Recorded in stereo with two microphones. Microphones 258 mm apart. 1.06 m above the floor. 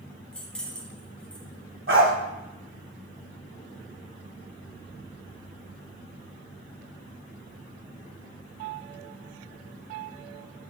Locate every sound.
0.3 s keys jangling: 5° left (ahead or behind), 0.9 m
1.9 s a dog barking: 50° right (ahead or behind), 1.5 m